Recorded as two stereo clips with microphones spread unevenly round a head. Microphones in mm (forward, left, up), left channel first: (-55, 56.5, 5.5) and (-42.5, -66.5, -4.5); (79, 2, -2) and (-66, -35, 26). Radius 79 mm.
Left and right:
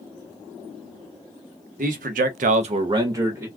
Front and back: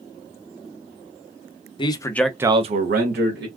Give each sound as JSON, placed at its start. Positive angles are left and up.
{"t": 1.8, "sound": "a man speaking", "azimuth_deg": -40, "distance_m": 0.8}